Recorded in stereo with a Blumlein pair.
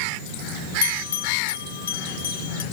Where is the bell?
65° left, 0.6 m.